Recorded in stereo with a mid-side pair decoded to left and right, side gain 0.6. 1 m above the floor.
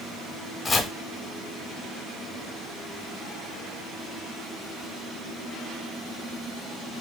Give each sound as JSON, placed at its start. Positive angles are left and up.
{"t": 0.7, "sound": "chopping", "azimuth_deg": 25, "distance_m": 0.6}